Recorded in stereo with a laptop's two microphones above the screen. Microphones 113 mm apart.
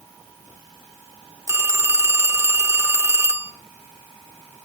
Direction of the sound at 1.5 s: 20° right (ahead or behind).